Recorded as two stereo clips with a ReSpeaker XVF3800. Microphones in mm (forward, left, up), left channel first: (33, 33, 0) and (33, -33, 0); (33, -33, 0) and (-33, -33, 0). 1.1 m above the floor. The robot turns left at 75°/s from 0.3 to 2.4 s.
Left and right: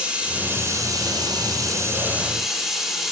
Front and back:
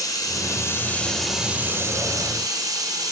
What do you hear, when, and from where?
0.0 s running water: 20° right, 3.5 m; by 3.1 s 175° right, 3.5 m